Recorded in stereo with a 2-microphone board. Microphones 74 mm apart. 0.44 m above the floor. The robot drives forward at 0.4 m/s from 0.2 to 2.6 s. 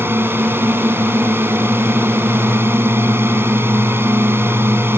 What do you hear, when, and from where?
0.0 s a drone: 30° right (ahead or behind)